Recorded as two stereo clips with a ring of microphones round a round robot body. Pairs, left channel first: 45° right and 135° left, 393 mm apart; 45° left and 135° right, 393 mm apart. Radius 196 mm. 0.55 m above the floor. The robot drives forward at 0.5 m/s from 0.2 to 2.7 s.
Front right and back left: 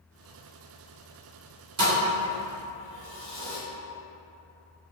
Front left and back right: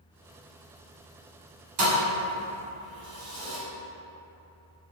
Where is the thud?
160° right, 1.7 m; by 3.6 s 165° right, 2 m.